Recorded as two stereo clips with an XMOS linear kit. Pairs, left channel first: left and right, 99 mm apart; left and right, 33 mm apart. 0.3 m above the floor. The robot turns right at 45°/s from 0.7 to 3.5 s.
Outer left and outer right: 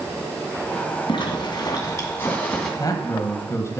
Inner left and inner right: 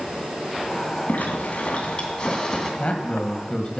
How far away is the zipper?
About 2.5 m.